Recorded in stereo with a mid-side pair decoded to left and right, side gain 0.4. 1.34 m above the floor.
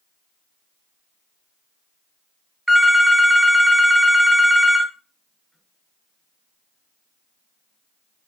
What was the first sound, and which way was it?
A phone ringing, 15° right.